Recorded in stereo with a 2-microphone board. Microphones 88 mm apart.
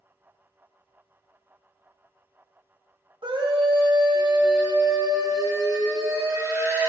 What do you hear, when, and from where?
3.2 s a scream: 75° right (ahead or behind), 2.5 m; by 6.9 s 35° right (ahead or behind), 5.5 m